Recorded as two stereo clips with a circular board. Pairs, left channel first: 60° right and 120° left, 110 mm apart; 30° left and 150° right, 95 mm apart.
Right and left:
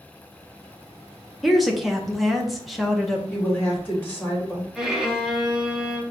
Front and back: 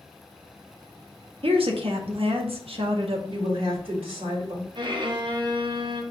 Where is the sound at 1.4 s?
150° right, 0.9 m.